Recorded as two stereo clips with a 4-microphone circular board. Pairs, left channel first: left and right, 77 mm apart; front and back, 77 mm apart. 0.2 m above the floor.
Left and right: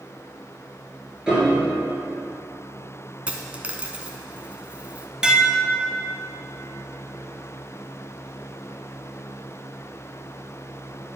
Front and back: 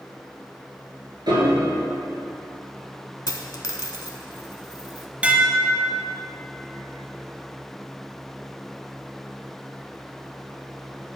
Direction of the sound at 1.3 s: 170° right.